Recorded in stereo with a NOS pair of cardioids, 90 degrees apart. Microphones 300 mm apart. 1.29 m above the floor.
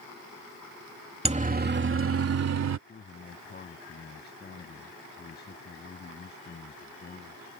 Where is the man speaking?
35° left.